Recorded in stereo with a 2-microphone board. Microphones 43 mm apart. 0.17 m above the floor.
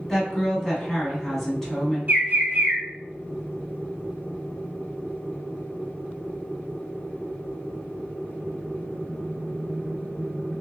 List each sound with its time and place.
0.1 s a woman speaking: 10° left (ahead or behind), 1.2 m
2.1 s a bird: 50° right (ahead or behind), 1.0 m